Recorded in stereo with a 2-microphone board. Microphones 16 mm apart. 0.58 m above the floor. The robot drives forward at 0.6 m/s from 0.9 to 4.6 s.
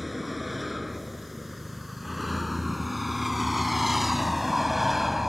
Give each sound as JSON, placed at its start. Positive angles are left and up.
{"t": 0.0, "sound": "a vehicle", "side_deg": -5}